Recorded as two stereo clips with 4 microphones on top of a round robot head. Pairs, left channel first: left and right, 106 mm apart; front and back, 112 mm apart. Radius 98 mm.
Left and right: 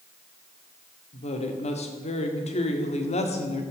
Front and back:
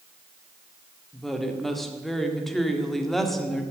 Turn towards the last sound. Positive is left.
turn(degrees=90)